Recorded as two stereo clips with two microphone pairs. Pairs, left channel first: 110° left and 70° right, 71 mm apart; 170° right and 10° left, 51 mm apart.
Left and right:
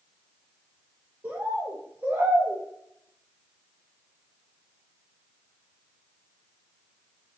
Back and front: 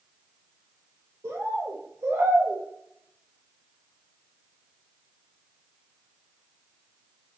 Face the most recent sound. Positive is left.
turn(degrees=-5)